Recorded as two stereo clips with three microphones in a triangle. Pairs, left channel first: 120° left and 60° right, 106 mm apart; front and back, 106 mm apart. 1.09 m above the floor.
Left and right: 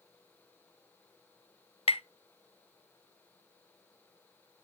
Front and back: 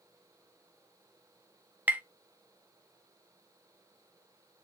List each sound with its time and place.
1.9 s tapping: 110° left, 0.7 m